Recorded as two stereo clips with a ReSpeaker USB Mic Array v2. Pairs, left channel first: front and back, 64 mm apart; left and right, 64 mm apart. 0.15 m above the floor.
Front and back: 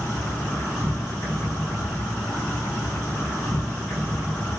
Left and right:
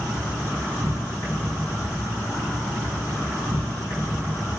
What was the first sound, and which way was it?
An insect, 55° left.